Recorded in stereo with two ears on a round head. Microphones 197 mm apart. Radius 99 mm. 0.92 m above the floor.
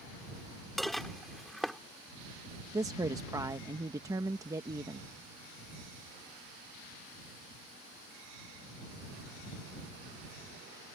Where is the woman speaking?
15° right (ahead or behind).